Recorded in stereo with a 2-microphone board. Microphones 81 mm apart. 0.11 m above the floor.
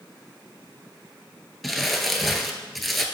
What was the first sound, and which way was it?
Crumpling, centre (ahead or behind).